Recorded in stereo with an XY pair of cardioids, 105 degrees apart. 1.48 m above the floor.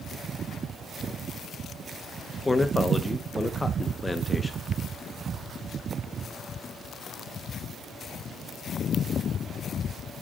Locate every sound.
2.5 s a man speaking: 15° left, 1.4 m